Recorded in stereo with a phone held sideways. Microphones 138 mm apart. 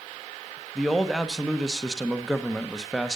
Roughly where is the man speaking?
Centre.